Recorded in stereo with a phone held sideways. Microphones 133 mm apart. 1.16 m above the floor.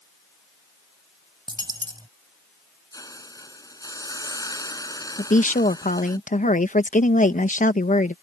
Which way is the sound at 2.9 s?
25° left (ahead or behind).